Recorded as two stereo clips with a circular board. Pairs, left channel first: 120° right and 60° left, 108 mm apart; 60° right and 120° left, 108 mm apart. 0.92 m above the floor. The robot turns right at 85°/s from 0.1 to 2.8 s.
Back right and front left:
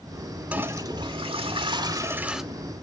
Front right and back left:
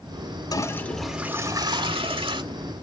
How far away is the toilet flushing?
About 0.9 m.